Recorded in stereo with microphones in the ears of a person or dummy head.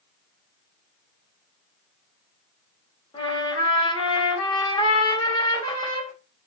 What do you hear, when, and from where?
3.1 s a trumpet: 30° left (ahead or behind), 1.5 m